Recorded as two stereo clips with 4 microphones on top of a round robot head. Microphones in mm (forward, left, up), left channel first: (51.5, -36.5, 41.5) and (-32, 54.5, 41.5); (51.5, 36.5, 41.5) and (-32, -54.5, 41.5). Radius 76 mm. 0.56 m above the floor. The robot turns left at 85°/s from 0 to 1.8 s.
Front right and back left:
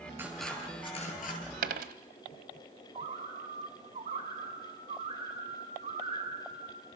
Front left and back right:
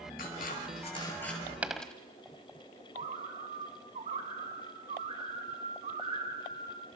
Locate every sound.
0.2 s scissors: 60° left, 6.5 m; by 1.4 s 40° right, 6.5 m
1.6 s a dropped coin: 150° left, 1.2 m; by 1.9 s 130° left, 1.2 m
3.0 s a bird: straight behind, 3 m